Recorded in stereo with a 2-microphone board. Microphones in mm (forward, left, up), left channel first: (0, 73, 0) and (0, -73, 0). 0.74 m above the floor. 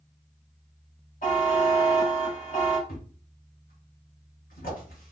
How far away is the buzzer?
About 1.6 m.